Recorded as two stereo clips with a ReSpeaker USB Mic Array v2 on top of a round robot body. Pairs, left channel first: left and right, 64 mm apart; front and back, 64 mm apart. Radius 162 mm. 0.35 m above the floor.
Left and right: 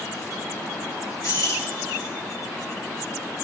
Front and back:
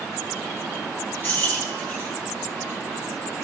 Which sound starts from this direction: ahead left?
Keys jangling, at 1.2 s.